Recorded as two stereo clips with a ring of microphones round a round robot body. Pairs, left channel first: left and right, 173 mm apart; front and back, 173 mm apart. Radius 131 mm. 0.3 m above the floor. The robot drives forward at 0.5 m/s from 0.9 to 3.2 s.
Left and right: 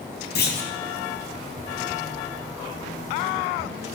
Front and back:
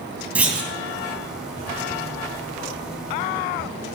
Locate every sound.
0.3 s a clunk: 100° left, 3 m